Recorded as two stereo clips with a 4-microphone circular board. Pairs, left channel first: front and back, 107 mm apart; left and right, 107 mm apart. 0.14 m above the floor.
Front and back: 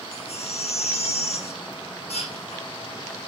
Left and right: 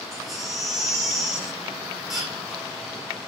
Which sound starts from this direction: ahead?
A baby crying, at 0.1 s.